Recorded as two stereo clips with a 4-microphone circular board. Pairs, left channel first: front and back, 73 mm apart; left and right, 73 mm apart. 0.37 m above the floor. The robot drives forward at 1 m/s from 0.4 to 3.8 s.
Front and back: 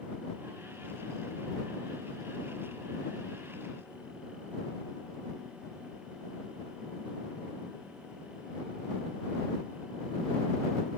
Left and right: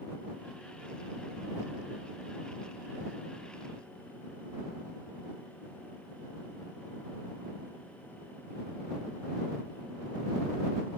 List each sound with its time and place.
Only background noise.